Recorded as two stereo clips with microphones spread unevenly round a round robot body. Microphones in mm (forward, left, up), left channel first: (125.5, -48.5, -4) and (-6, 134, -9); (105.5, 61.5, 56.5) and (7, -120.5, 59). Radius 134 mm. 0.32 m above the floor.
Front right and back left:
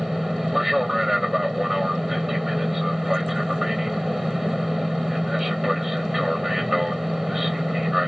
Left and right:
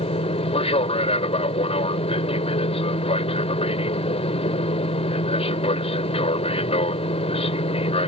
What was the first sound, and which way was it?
An aircraft, 35° left.